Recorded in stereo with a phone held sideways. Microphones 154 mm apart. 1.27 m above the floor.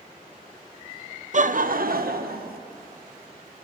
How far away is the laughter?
About 0.5 m.